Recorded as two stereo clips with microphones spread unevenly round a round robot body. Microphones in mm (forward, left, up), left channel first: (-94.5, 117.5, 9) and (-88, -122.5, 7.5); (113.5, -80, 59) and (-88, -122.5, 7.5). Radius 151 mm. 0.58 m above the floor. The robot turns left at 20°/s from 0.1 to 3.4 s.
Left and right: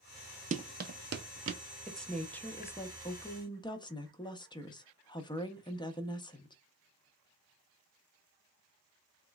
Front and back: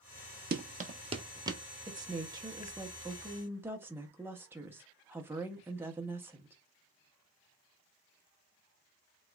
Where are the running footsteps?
135° right, 0.7 m; by 1.6 s 85° right, 0.8 m.